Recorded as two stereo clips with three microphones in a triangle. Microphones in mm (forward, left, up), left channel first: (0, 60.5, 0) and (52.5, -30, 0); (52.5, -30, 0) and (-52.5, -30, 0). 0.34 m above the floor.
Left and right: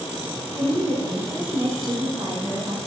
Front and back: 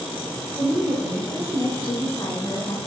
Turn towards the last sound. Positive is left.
turn(degrees=-45)